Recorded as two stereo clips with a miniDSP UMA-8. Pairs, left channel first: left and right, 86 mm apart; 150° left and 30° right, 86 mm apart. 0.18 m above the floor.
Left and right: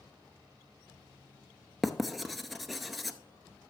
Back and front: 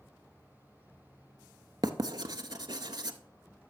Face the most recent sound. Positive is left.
turn(degrees=0)